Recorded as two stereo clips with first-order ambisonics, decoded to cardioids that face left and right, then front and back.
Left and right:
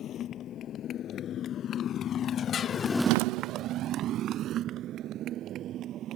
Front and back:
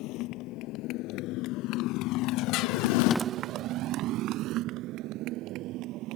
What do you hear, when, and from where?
0.0 s a motorcycle: 35° left; by 6.2 s 140° right